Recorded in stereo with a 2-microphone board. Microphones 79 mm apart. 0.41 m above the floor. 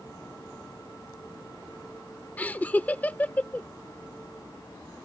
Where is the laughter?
20° left (ahead or behind).